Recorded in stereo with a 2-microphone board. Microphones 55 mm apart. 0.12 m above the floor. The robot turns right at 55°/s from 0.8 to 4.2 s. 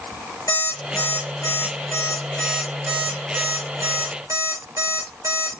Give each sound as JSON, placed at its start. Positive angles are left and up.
{"t": 0.5, "sound": "an alarm clock", "side_deg": 80, "distance_m": 4.5}